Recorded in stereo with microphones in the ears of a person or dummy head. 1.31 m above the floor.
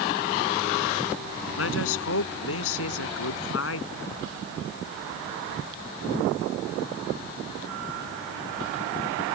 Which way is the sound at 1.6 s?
80° left.